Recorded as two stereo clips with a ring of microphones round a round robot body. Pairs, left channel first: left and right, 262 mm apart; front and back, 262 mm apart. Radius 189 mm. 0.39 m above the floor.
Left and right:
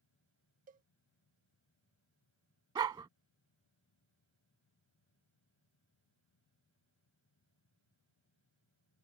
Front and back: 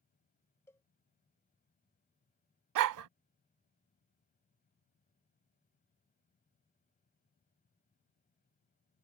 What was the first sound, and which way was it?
A cowbell, 75° right.